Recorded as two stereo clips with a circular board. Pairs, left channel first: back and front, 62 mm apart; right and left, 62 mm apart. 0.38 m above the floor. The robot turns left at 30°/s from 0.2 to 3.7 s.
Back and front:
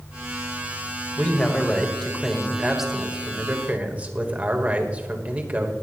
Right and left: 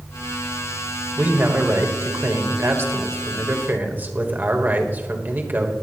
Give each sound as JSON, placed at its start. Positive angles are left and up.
{"t": 1.2, "sound": "a man speaking", "azimuth_deg": 130, "distance_m": 1.4}